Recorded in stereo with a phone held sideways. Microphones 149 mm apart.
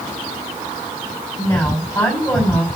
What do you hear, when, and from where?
1.4 s a woman speaking: 10° left (ahead or behind), 5 m